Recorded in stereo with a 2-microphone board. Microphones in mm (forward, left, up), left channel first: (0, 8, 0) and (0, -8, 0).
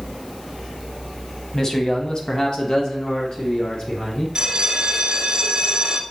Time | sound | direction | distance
1.5 | a man speaking | 30° left (ahead or behind) | 1.2 m
4.3 | a bell | 50° right (ahead or behind) | 1.1 m